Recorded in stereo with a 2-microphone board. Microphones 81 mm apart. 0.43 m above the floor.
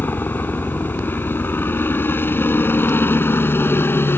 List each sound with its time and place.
0.0 s a helicopter: 25° left (ahead or behind); by 4.2 s 30° left (ahead or behind)